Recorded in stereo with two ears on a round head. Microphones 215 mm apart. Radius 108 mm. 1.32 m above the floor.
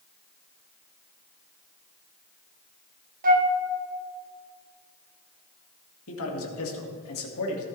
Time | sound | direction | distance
3.2 | a flute | 40° right (ahead or behind) | 1.2 m
6.1 | a man speaking | 60° left (ahead or behind) | 2 m